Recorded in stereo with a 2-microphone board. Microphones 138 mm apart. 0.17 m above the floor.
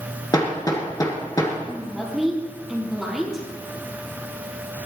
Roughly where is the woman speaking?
Centre.